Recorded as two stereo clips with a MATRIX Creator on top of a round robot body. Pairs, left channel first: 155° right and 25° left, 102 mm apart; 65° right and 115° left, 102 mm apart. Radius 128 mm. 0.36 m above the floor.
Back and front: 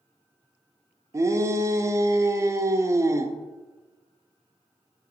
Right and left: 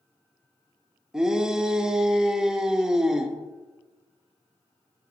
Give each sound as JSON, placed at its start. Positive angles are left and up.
{"t": 1.1, "sound": "a shout", "azimuth_deg": 35, "distance_m": 0.9}